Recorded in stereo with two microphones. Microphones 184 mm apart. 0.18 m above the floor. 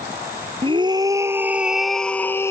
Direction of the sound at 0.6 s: 30° right (ahead or behind).